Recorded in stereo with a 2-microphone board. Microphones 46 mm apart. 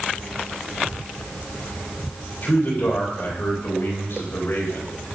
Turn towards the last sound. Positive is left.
turn(degrees=65)  # may be behind; listen again after turning